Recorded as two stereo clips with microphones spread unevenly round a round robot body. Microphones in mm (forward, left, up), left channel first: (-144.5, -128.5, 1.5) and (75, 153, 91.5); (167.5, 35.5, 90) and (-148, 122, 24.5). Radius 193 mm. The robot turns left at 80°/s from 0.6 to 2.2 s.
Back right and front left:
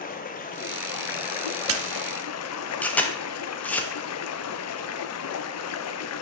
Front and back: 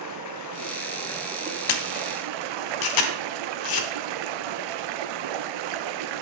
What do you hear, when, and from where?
0.0 s running water: 55° right, 0.8 m; by 6.2 s straight behind, 0.8 m
1.7 s a camera shutter: 5° right, 1.1 m; by 3.9 s 45° right, 1.1 m